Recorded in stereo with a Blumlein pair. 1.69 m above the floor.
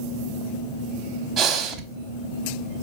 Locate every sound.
1.4 s breathing: 30° right, 0.6 m